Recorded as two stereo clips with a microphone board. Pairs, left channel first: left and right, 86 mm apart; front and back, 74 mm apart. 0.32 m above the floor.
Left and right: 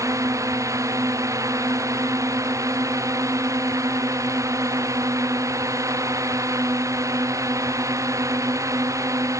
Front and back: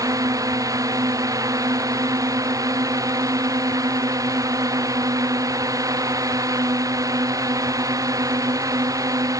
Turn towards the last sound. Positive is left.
turn(degrees=-140)